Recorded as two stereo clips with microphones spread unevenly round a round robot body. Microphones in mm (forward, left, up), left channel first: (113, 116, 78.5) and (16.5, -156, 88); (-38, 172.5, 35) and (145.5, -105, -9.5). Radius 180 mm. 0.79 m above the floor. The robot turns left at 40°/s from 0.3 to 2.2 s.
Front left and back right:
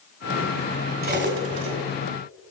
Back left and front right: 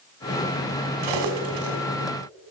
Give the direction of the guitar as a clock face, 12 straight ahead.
I don't hear a guitar.